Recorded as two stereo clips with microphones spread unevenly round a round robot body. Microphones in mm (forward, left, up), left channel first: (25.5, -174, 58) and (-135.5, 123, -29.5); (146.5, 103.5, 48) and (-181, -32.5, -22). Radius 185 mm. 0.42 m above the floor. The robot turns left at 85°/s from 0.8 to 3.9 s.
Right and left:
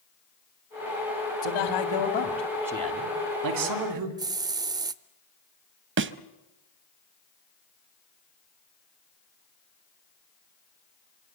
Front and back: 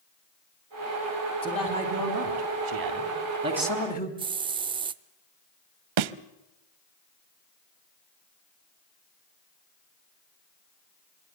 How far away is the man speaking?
About 3 m.